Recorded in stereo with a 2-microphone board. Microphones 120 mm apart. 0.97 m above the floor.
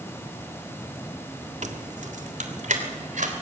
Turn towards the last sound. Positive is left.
turn(degrees=-85)